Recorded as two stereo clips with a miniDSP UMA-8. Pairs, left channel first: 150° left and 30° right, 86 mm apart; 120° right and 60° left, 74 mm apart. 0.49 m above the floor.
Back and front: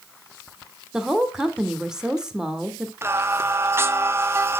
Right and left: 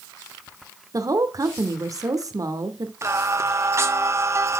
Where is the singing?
20° left, 0.7 m.